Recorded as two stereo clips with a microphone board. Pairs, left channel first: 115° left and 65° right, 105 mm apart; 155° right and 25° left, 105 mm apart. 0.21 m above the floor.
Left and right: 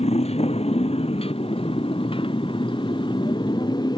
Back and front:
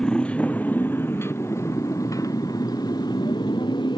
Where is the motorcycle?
120° left; by 4.0 s 160° left.